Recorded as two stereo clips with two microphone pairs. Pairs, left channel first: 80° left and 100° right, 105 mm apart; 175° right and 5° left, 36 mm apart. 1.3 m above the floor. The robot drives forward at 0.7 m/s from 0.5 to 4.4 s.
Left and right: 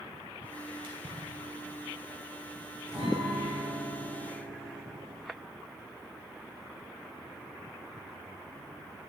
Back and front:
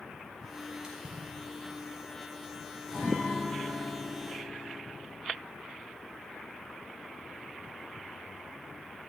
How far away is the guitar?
About 3 m.